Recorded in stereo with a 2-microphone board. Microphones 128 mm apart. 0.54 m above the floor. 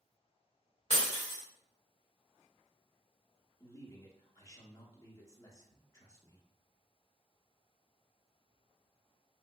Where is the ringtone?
I don't hear a ringtone.